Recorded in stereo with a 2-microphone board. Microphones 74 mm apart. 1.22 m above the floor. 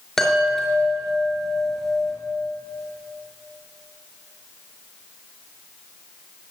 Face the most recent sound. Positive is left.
turn(degrees=5)  # may be behind; listen again after turning